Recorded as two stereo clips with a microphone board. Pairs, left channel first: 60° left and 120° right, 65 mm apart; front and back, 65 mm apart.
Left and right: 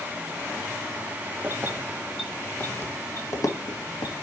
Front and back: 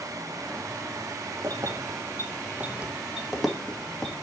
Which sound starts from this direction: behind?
Keys jangling, at 1.4 s.